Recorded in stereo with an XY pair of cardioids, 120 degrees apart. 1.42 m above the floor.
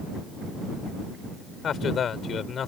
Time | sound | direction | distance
1.6 | a man speaking | 45° left | ?